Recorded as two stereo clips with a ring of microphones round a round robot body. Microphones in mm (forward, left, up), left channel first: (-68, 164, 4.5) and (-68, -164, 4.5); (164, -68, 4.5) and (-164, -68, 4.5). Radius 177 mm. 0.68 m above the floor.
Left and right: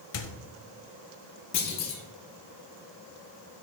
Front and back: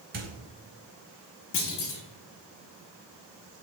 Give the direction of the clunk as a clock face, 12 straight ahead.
10 o'clock.